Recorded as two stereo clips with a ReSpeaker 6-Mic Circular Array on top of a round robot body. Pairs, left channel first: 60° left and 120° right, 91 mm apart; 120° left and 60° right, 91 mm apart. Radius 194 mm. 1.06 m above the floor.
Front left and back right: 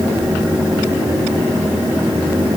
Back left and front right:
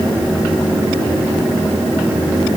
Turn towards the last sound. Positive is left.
No sound to turn to.